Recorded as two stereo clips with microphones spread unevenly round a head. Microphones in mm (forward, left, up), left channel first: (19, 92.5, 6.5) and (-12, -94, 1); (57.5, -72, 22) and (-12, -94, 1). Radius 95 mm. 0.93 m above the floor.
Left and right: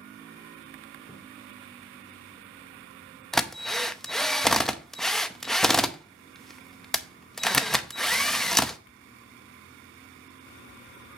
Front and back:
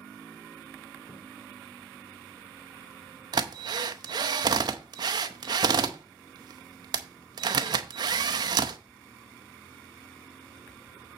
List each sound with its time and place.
1.1 s footsteps: 10° left, 4 m
3.3 s a drill: 170° left, 0.6 m